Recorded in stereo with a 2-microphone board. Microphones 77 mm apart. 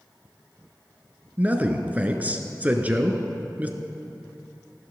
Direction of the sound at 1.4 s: 20° right (ahead or behind).